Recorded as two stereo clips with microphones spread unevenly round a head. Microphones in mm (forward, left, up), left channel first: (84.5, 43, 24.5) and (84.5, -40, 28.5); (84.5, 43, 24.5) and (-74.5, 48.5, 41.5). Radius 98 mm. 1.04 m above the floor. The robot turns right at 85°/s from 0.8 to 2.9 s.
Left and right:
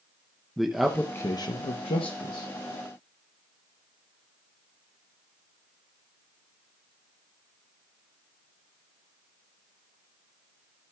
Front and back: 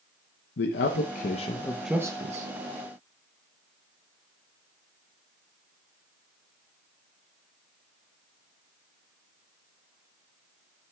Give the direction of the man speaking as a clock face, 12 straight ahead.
12 o'clock.